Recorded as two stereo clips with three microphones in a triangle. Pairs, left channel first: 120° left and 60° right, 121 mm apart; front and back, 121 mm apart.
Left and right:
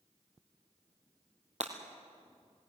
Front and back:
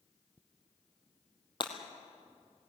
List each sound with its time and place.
1.6 s breaking glass: 45° right, 2.5 m